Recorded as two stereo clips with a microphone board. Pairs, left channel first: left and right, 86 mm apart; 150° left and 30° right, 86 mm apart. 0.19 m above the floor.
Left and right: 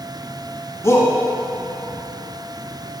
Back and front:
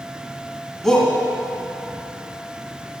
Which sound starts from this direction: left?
A shout, at 0.8 s.